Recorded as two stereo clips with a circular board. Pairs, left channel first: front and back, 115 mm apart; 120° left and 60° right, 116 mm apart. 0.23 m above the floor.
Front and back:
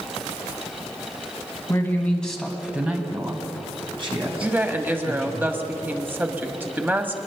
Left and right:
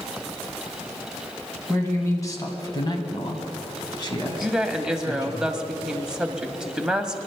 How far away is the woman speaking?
About 1.1 m.